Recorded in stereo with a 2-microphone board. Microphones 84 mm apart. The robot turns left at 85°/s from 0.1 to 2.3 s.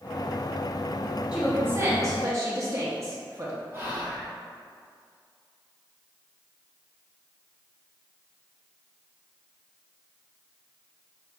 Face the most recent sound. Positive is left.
turn(degrees=-30)  # may be behind; listen again after turning